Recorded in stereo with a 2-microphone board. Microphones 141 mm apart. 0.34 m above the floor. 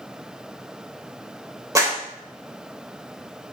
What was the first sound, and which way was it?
A clap, 25° right (ahead or behind).